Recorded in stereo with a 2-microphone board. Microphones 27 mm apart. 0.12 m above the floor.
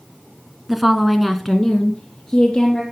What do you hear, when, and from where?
0.7 s a woman speaking: 10° right (ahead or behind), 1.4 m; by 2.8 s 15° left (ahead or behind), 2.5 m